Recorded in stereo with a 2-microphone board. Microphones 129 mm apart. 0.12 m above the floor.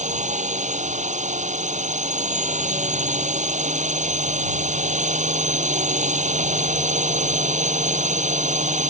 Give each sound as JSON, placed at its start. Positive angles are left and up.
{"t": 0.0, "sound": "a drone", "side_deg": -65}